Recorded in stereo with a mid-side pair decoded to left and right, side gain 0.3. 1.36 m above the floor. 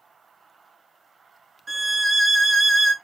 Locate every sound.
1.7 s a violin: 45° right, 0.8 m